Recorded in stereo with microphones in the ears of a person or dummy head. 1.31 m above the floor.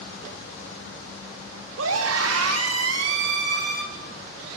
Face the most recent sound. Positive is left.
turn(degrees=-45)  # may be behind; listen again after turning